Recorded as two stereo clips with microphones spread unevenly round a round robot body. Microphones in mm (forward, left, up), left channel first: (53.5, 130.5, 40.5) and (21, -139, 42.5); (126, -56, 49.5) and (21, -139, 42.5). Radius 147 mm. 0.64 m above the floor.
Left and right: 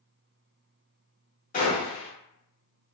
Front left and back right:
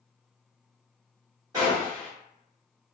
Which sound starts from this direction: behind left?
A gunshot, at 1.5 s.